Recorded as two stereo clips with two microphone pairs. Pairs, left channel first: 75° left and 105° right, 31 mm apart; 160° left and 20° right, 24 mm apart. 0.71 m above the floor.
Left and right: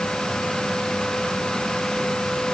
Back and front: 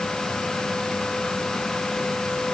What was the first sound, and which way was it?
Only background noise.